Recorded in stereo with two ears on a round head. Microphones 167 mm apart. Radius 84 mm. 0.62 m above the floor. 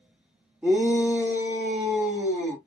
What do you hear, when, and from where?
0.6 s a shout: 10° right (ahead or behind), 0.9 m